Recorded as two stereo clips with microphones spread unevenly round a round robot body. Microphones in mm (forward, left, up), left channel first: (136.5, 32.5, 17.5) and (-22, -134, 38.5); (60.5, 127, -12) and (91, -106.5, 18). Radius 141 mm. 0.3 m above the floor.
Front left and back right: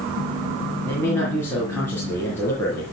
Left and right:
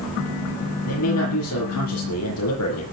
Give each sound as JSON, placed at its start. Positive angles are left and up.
{"t": 0.8, "sound": "a man speaking", "azimuth_deg": 125, "distance_m": 7.0}